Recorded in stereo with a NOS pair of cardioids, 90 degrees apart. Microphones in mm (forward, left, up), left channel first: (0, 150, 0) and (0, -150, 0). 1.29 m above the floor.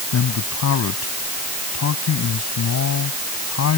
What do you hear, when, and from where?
0.1 s a man speaking: 60° left